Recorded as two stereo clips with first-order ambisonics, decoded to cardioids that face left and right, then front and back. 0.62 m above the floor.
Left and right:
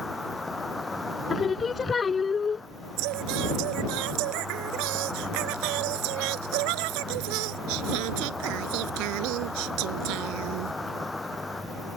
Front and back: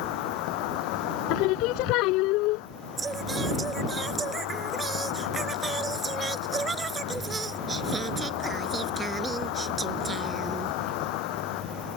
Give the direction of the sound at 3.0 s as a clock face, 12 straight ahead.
4 o'clock.